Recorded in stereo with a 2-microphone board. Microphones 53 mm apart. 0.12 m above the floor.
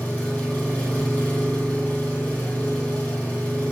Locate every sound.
0.0 s an engine running: 25° left (ahead or behind), 1.3 m